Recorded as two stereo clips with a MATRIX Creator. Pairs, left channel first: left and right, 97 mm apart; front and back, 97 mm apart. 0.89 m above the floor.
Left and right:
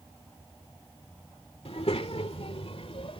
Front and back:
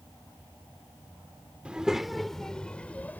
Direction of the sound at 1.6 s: 100° left.